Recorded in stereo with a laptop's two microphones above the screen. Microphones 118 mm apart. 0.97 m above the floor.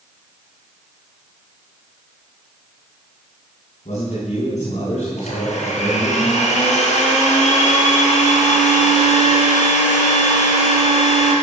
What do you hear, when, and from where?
3.9 s a man speaking: 75° left (ahead or behind), 6.5 m
5.2 s a blender: 80° left, 5 m